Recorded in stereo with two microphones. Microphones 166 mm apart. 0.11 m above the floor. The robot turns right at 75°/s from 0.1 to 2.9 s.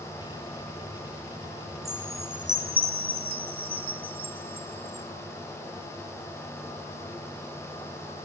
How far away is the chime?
About 0.5 m.